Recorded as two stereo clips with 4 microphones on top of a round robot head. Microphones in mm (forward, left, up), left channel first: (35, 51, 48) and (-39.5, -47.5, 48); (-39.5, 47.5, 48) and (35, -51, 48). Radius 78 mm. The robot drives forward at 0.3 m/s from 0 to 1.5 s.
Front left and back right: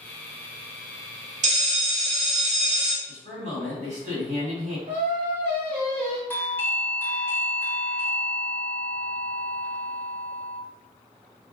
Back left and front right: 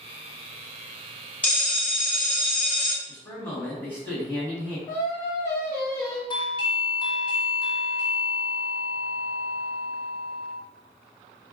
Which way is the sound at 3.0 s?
155° right.